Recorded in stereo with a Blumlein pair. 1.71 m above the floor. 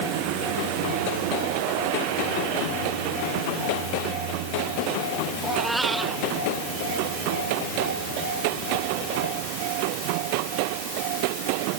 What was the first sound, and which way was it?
A cat meowing, 10° right.